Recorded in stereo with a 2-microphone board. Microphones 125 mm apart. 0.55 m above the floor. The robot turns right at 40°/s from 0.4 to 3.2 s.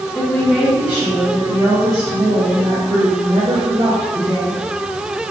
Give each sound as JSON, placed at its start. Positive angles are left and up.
{"t": 0.1, "sound": "a woman speaking", "azimuth_deg": 175, "distance_m": 0.9}